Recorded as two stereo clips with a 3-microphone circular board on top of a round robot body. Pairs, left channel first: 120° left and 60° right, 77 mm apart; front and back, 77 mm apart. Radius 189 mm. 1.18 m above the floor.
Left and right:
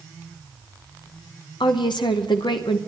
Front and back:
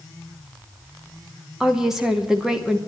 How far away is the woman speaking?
About 0.9 m.